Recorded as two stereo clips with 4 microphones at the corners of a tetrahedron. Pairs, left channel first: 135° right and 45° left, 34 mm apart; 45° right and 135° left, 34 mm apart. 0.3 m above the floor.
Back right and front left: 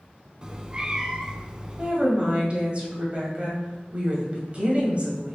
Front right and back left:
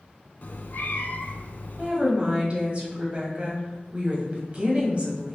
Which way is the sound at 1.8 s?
90° left.